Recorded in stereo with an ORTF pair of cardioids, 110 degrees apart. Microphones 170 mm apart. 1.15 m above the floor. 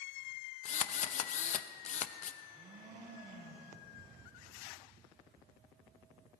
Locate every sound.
0.7 s a drill: 45° left, 0.7 m
2.4 s a blender: 55° right, 5 m